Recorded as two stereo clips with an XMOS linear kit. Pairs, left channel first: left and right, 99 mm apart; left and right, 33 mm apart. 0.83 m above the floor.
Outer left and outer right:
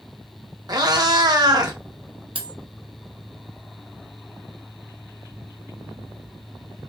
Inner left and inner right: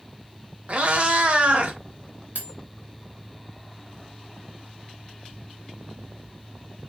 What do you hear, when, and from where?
0.7 s a cat meowing: 40° right (ahead or behind), 0.7 m
2.4 s cutlery clinking: 60° right (ahead or behind), 0.6 m